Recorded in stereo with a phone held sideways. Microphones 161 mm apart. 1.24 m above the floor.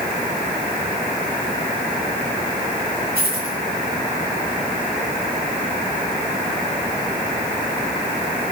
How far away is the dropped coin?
About 4.5 m.